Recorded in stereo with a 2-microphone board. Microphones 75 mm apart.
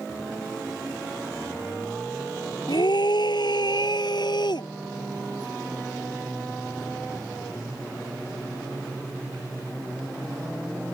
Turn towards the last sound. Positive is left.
turn(degrees=75)  # may be behind; listen again after turning